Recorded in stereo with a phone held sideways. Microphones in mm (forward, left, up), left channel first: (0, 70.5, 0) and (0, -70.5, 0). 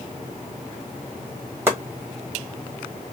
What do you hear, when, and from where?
1.7 s chopping: 15° right (ahead or behind), 1.5 m